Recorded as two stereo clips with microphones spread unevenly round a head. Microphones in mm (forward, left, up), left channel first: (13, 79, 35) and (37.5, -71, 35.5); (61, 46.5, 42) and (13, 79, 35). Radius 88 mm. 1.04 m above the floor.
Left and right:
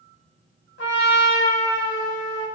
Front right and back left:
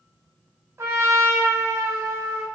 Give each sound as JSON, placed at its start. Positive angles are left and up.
{"t": 0.8, "sound": "a trumpet", "azimuth_deg": 105, "distance_m": 1.4}